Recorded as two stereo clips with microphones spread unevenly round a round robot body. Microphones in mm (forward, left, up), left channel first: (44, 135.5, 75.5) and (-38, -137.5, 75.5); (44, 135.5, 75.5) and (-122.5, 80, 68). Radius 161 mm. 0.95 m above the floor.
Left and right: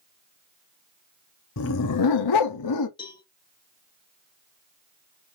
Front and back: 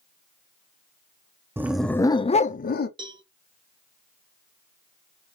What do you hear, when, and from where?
1.6 s a dog barking: 120° left, 0.6 m; by 2.9 s 45° left, 0.8 m
3.0 s a cowbell: 145° left, 0.9 m